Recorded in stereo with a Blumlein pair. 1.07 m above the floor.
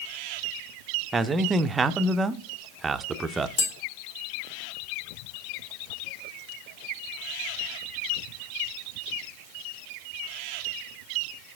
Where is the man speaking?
15° right, 0.5 m.